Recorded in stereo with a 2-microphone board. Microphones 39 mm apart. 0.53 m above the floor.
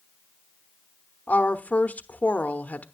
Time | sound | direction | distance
1.3 | a woman speaking | 40° left (ahead or behind) | 0.9 m